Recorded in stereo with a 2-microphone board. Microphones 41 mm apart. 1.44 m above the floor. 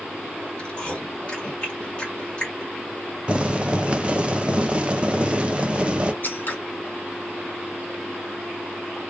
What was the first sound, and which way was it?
Chewing, 30° left (ahead or behind).